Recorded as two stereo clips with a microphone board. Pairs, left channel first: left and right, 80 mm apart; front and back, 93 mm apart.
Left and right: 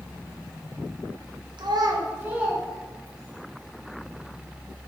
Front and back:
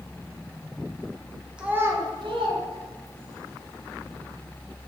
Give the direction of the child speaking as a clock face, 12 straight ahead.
3 o'clock.